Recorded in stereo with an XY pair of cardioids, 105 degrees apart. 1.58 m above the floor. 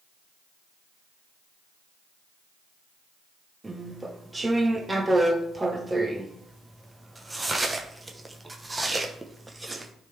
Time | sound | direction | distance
3.6 | chewing | 15° right | 1.0 m